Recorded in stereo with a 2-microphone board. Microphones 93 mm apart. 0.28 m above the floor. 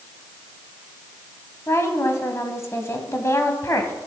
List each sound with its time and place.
1.7 s a woman speaking: 30° left (ahead or behind), 1.9 m